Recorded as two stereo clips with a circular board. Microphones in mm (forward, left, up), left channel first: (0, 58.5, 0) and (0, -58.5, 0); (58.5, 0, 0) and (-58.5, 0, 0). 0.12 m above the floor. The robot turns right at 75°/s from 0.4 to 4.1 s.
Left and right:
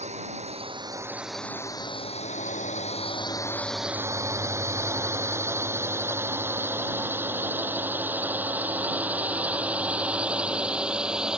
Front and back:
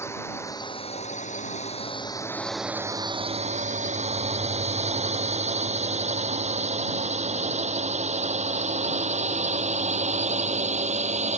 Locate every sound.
0.0 s a drone: 70° right; by 11.4 s 175° right